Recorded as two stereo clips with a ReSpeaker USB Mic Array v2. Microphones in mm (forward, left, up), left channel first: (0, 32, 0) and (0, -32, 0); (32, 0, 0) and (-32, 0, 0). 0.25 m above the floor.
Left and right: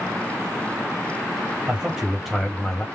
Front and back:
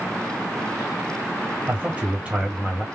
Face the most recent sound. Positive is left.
turn(degrees=135)